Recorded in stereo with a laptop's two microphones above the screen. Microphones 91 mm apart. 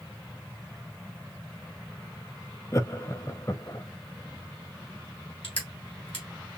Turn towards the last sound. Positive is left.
turn(degrees=80)